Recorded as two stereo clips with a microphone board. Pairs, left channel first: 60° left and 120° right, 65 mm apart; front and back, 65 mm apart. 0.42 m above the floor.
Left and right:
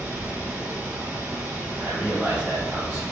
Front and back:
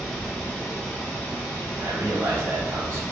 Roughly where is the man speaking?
Behind.